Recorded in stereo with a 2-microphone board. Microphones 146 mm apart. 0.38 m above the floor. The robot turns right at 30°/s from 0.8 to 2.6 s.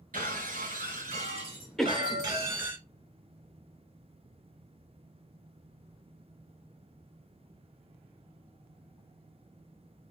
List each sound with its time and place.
0.1 s breaking glass: 70° right, 1.7 m; by 2.8 s 15° right, 1.7 m
1.8 s a cough: centre (ahead or behind), 0.8 m; by 2.2 s 5° right (ahead or behind), 0.8 m